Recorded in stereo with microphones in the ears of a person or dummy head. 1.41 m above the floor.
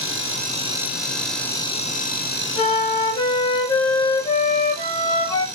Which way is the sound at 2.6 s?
25° left (ahead or behind).